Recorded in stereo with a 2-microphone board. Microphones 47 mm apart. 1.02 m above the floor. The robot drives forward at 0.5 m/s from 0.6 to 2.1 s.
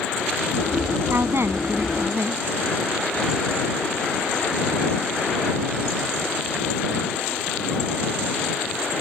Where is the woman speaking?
60° right (ahead or behind).